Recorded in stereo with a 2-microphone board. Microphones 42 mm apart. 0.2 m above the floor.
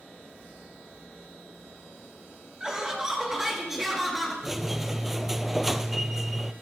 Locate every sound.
2.6 s laughter: 20° right (ahead or behind), 3 m; by 4.3 s centre (ahead or behind), 3.5 m
4.4 s a squeak: 5° right (ahead or behind), 0.5 m